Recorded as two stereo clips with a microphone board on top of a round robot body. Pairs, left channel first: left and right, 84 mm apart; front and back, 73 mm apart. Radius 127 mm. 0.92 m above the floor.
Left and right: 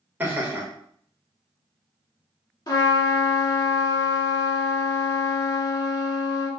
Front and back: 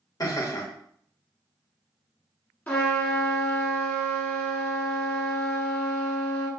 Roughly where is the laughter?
Ahead right.